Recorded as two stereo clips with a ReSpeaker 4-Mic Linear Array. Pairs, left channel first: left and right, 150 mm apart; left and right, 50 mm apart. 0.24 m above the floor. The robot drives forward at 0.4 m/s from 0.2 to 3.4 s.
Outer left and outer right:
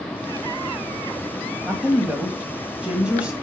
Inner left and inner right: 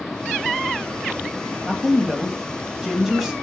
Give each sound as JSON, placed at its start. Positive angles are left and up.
{"t": 1.6, "sound": "a woman speaking", "side_deg": -10, "distance_m": 1.4}